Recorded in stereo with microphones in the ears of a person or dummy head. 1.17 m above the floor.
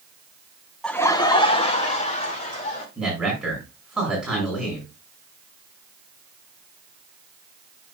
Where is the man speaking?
5° left (ahead or behind), 6 m.